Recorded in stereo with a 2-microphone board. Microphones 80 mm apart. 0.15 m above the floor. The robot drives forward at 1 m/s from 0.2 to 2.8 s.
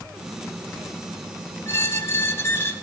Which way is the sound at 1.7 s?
35° left (ahead or behind).